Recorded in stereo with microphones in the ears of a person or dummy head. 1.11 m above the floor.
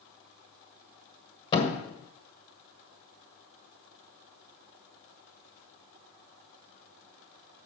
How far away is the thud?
About 1.5 m.